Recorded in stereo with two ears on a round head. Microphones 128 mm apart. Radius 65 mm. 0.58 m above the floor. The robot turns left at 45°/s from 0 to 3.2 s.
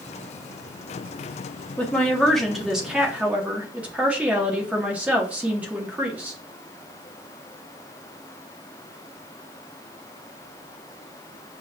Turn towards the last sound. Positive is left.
turn(degrees=-10)  # may be behind; listen again after turning